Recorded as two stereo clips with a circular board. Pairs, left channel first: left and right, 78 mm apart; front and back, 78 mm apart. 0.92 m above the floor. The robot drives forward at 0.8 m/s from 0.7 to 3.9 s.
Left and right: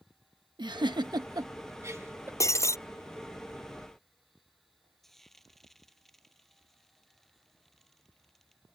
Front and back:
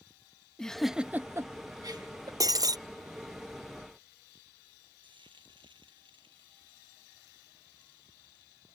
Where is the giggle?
85° right; by 2.3 s 150° right.